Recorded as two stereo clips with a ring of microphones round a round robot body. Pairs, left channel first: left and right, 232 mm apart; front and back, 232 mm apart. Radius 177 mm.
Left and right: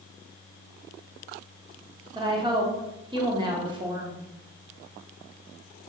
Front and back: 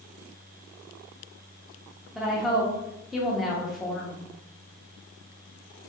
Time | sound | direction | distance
2.1 | a woman speaking | 95° right | 1.0 m